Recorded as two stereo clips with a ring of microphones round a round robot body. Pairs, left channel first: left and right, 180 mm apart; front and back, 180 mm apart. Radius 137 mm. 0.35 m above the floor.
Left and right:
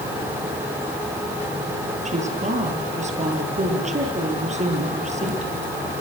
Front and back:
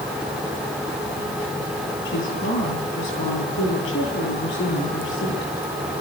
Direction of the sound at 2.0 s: 35° right.